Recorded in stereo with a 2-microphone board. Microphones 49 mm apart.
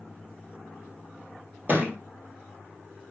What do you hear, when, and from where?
1.7 s a thud: 45° right (ahead or behind), 1.2 m